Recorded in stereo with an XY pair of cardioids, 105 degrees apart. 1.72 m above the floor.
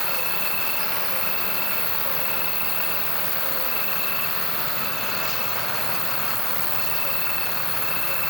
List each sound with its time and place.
0.0 s an insect: straight ahead, 4.5 m